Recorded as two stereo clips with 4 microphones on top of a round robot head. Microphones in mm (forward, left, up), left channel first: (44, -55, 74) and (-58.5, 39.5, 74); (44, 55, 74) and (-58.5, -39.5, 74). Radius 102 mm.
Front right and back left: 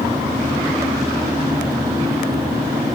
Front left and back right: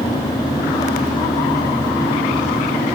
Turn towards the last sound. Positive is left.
No sound to turn to.